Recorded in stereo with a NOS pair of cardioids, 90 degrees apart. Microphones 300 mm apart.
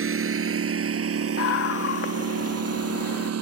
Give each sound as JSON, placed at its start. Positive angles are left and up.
{"t": 0.0, "sound": "a lawn mower", "azimuth_deg": -45}
{"t": 1.4, "sound": "a scream", "azimuth_deg": 50}